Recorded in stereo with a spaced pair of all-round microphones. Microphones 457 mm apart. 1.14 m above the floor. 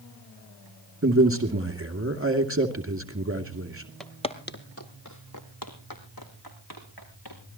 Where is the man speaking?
30° right (ahead or behind), 2.5 m.